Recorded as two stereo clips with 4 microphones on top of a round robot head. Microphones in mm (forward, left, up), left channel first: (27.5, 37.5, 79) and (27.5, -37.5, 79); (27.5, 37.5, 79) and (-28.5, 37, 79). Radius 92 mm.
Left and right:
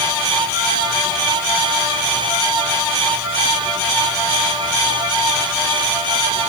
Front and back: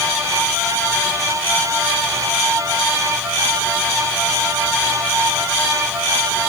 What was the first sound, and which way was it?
Only background noise.